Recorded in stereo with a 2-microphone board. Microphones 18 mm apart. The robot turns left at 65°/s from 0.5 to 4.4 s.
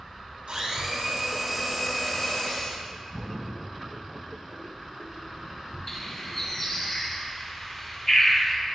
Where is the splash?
5° right (ahead or behind), 2.5 m; by 6.9 s 70° right (ahead or behind), 2.5 m.